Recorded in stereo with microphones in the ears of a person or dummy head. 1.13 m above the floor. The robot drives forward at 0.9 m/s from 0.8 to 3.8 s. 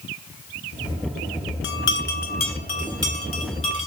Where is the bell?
65° left (ahead or behind), 1.1 m; by 3.9 s 25° left (ahead or behind), 2.5 m.